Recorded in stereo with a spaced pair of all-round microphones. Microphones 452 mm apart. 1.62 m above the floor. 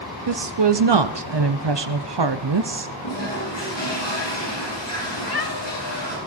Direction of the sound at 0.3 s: 65° right (ahead or behind).